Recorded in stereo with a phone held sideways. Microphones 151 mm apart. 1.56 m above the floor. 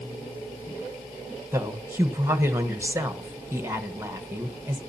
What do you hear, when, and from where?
1.5 s a woman speaking: 20° right (ahead or behind), 1.3 m